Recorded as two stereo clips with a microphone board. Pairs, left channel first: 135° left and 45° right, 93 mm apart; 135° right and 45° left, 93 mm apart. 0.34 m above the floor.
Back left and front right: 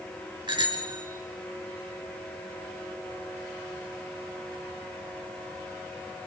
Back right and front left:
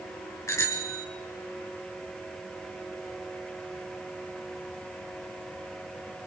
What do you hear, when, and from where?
0.5 s a bicycle bell: 75° right, 3.5 m